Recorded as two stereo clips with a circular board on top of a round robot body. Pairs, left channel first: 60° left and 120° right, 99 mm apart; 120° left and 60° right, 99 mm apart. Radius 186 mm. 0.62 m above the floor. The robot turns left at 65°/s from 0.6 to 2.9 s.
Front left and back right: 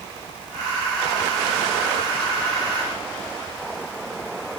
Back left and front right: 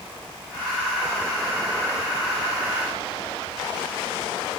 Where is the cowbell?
I don't hear a cowbell.